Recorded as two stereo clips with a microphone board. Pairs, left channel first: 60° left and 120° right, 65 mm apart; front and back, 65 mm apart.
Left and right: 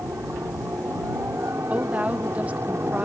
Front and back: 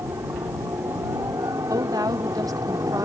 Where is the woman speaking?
170° left.